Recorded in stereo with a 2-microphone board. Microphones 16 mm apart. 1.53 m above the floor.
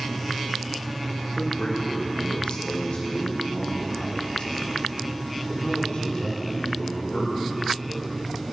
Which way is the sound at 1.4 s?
85° left.